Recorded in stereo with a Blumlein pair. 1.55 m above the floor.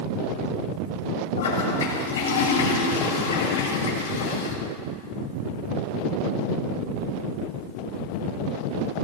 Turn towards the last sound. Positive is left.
turn(degrees=65)